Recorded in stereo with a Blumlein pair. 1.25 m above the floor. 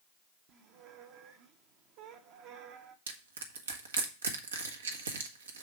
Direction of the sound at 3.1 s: 65° right.